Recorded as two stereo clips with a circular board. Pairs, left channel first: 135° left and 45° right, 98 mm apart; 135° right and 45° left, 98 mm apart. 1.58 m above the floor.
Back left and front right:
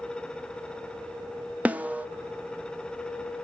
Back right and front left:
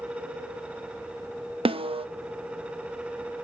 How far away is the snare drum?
About 0.7 m.